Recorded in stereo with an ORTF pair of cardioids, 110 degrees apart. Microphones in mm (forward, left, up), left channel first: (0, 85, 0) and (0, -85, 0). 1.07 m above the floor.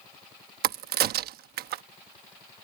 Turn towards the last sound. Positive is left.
turn(degrees=-65)